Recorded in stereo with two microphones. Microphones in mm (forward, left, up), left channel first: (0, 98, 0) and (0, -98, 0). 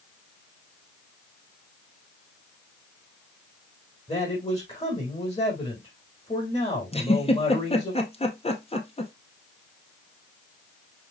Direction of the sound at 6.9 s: 30° left (ahead or behind).